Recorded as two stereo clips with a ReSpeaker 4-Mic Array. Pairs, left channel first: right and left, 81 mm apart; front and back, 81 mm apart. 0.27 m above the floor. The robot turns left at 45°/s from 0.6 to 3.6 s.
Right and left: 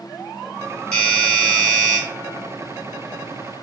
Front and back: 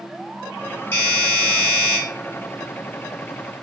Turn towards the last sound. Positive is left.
turn(degrees=-145)